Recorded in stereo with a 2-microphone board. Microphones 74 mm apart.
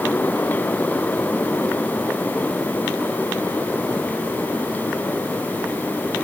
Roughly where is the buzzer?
No buzzer in this recording.